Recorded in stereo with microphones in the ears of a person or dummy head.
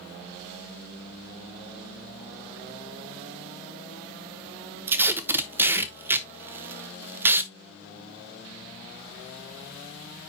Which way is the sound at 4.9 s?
10° right (ahead or behind).